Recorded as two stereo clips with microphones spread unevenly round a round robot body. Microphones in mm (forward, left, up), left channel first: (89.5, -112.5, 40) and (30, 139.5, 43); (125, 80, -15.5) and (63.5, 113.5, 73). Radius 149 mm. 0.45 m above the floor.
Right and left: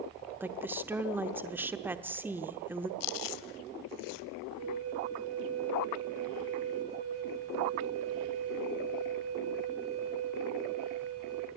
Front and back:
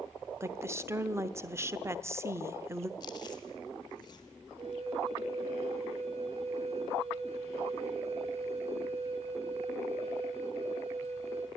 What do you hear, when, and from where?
0.4 s a woman speaking: 25° left, 0.9 m
3.0 s chewing: 80° right, 0.6 m
4.6 s a flute: 125° left, 2 m